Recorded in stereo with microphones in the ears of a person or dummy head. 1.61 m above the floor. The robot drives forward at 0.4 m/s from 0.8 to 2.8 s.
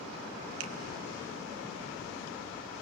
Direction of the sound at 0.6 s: 75° right (ahead or behind).